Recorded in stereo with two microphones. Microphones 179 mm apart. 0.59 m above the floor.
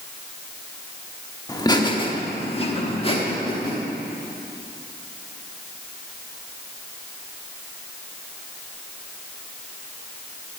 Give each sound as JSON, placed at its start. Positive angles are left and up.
{"t": 1.5, "sound": "laughter", "side_deg": 20, "distance_m": 1.4}